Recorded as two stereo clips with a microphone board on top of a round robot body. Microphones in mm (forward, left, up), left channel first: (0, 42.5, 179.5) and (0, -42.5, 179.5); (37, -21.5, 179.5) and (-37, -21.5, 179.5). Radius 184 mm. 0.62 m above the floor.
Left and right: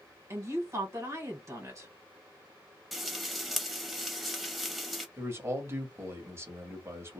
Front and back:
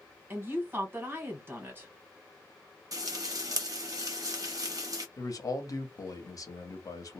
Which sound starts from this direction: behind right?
A woman speaking, at 0.3 s.